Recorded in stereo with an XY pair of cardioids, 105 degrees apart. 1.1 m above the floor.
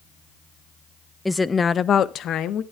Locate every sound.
1.2 s a woman speaking: 10° left, 0.6 m; by 2.6 s 80° left, 1.0 m